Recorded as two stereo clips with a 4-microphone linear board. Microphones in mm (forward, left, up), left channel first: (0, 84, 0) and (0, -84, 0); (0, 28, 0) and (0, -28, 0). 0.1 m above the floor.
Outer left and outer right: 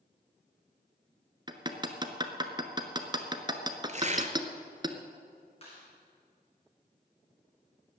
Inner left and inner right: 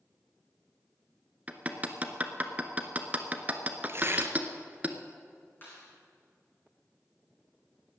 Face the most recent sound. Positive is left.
turn(degrees=35)  # may be behind; listen again after turning